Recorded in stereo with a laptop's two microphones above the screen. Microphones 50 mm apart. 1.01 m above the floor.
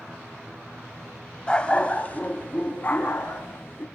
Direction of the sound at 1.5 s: 20° left (ahead or behind).